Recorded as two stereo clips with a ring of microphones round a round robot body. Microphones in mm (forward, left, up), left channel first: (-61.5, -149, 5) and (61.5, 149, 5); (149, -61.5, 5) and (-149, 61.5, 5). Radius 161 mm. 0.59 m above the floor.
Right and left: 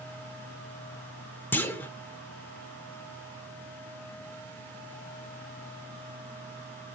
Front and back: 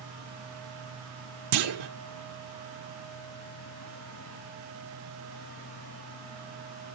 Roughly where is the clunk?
Behind.